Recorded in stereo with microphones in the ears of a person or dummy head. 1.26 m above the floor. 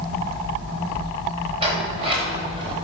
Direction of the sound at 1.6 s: 35° right (ahead or behind).